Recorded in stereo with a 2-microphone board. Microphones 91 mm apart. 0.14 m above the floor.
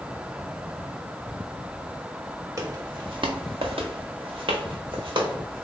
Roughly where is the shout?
No shout in this recording.